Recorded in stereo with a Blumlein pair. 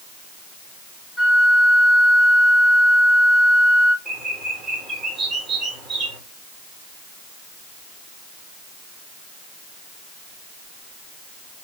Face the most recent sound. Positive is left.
turn(degrees=-10)